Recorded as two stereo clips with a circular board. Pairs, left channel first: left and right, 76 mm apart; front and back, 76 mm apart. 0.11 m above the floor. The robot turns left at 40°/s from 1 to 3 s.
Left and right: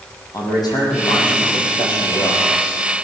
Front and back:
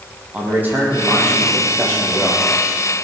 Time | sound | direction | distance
0.3 | a man speaking | 115° left | 4.5 m